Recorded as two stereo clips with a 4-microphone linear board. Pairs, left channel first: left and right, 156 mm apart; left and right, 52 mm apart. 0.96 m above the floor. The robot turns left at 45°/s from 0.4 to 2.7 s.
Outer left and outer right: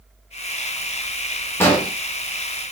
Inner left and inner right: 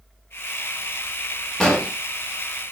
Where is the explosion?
15° left (ahead or behind), 0.9 m; by 1.9 s 5° left (ahead or behind), 0.9 m.